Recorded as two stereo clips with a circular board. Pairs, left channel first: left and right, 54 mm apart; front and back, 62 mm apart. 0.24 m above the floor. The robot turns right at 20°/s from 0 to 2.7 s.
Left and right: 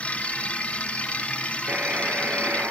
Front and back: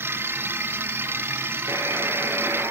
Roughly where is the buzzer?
Behind right.